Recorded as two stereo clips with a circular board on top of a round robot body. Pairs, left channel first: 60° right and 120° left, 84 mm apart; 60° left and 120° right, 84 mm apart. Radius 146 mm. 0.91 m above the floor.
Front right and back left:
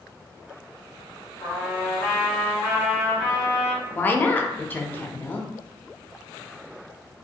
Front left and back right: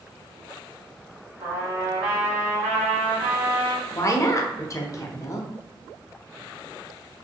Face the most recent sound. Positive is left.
turn(degrees=10)